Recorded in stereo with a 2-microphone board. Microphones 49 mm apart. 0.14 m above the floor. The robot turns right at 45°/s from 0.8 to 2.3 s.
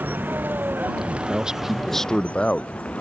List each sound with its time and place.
0.0 s a vehicle: 45° right; by 3.0 s 25° left
1.1 s a man speaking: 35° right; by 2.7 s 20° left